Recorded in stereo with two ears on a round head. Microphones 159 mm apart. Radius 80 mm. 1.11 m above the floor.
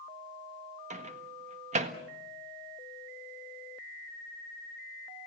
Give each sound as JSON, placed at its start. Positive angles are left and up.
{"t": 0.9, "sound": "a microwave", "side_deg": -40, "distance_m": 1.6}